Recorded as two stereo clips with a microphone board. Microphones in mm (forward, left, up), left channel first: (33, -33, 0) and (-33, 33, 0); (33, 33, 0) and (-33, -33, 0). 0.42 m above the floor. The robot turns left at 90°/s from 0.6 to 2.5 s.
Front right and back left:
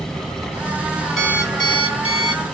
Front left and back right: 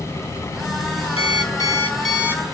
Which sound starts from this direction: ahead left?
An alarm clock, at 1.2 s.